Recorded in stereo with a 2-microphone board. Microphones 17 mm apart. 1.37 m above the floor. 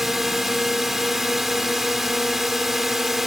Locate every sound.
0.0 s a drone: 15° right (ahead or behind)